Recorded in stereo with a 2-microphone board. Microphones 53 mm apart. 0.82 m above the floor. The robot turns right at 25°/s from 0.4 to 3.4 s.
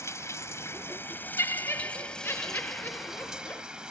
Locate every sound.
0.0 s running water: 120° left; by 3.9 s 165° right
1.4 s laughter: 85° left; by 3.6 s 135° left